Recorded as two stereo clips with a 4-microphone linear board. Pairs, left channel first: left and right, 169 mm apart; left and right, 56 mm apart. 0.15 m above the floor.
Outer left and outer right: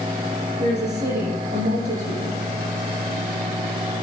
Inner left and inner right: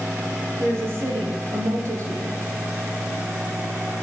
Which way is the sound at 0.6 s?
70° right (ahead or behind).